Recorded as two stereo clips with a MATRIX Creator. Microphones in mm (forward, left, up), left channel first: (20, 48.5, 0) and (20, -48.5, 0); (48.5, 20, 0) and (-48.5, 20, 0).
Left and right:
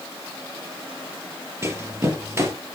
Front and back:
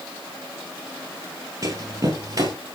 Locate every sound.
1.6 s running footsteps: 140° right, 1.9 m